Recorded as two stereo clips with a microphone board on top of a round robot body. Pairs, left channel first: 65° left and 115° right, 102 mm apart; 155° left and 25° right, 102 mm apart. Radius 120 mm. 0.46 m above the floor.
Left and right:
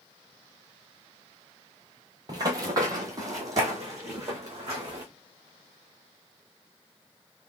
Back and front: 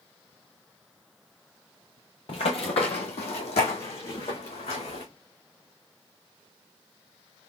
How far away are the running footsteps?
About 0.6 m.